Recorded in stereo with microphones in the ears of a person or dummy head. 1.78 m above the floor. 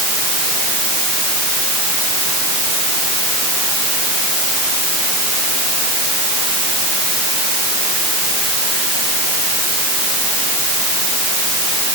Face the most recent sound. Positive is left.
No sound to turn to.